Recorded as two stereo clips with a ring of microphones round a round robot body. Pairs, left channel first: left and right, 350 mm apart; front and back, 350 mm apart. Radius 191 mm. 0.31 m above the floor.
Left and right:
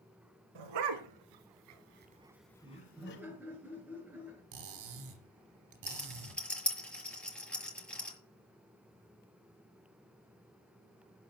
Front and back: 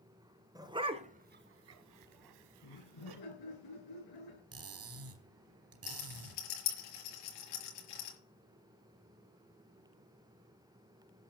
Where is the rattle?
5° left, 6 m.